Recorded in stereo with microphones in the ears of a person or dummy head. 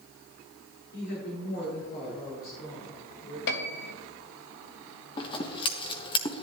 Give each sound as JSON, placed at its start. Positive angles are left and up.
{"t": 0.9, "sound": "a woman speaking", "side_deg": 60, "distance_m": 6.0}
{"t": 3.5, "sound": "a piano", "side_deg": 55, "distance_m": 1.1}
{"t": 5.2, "sound": "scissors", "side_deg": 25, "distance_m": 1.1}